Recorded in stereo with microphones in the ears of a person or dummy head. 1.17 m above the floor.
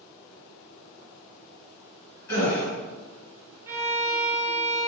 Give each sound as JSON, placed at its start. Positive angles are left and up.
{"t": 2.3, "sound": "a gasp", "side_deg": 15, "distance_m": 1.9}
{"t": 3.7, "sound": "a violin", "side_deg": -15, "distance_m": 0.5}